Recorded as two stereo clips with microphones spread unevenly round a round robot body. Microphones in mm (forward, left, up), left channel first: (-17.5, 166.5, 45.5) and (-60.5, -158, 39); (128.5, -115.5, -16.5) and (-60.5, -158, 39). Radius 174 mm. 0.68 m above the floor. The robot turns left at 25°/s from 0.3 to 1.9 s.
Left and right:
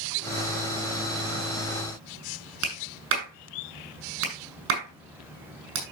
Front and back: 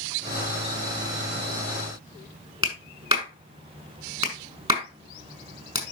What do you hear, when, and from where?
2.6 s a clap: 100° right, 6 m